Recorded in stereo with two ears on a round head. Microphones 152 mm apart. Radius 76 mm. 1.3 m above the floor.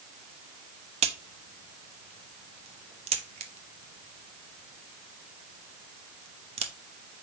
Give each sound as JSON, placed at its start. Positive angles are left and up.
{"t": 1.0, "sound": "a crack", "side_deg": -35, "distance_m": 0.7}